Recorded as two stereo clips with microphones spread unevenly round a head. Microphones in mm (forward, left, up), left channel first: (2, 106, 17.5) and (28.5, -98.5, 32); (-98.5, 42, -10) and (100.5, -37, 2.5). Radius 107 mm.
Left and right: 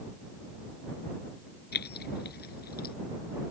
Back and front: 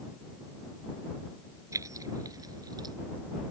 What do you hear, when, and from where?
1.7 s keys jangling: 55° left; by 3.0 s 50° left